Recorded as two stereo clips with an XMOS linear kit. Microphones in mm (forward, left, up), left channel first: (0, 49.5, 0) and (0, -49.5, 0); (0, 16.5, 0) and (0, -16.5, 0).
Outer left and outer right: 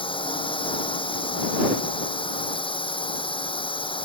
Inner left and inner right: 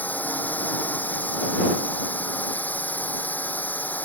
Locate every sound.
0.0 s a drone: 60° left (ahead or behind)